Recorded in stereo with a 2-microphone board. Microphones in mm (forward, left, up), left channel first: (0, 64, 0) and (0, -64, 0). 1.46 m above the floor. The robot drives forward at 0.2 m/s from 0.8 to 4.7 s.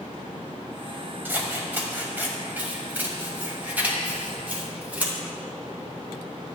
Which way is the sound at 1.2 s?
15° right (ahead or behind).